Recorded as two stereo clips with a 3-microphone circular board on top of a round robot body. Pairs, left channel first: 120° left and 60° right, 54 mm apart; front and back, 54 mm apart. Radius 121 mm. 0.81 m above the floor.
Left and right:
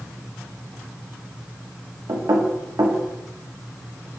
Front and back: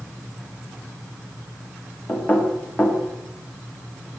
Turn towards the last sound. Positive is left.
turn(degrees=-60)